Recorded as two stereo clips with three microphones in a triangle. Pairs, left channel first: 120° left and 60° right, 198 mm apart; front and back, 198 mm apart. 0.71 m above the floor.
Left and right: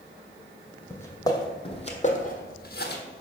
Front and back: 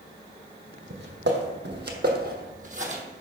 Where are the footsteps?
165° right, 1.5 m; by 3.0 s 135° left, 1.3 m.